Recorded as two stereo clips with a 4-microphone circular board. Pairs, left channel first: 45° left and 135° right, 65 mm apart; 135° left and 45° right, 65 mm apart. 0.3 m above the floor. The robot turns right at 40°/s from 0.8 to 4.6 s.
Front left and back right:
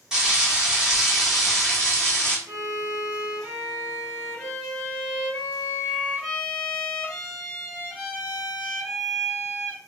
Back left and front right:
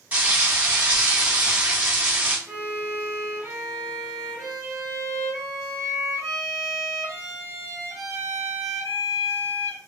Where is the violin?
110° right, 0.9 m; by 9.8 s 25° right, 0.9 m.